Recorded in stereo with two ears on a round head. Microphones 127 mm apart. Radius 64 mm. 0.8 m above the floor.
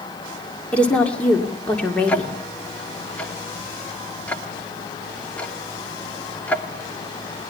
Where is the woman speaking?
10° left (ahead or behind), 2.5 m.